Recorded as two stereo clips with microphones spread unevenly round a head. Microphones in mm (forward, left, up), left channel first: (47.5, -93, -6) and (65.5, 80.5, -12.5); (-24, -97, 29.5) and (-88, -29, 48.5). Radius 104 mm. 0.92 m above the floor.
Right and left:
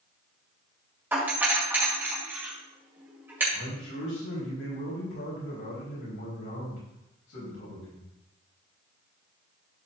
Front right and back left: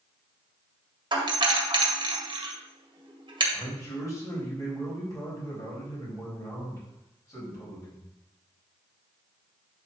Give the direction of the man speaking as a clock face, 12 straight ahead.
3 o'clock.